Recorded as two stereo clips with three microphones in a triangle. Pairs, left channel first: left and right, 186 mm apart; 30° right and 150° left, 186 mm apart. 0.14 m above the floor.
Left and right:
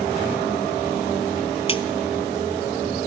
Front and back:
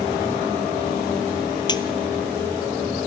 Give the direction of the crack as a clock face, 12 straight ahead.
11 o'clock.